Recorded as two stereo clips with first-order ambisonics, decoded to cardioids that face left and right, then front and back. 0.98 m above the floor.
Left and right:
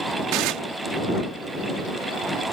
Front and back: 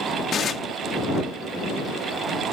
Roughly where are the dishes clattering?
Ahead right.